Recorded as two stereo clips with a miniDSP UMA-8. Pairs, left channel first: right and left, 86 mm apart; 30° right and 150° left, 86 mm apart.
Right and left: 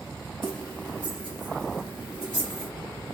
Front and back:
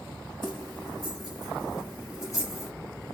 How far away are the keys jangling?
About 3.5 m.